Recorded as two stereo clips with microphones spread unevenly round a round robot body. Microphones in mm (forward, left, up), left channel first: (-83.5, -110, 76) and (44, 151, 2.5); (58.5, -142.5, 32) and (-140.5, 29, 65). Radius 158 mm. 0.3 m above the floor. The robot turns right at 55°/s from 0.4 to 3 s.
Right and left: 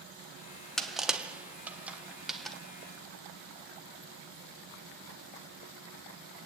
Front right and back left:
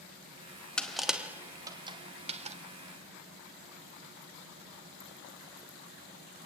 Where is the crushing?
15° left, 1.5 m; by 2.6 s 115° left, 1.5 m.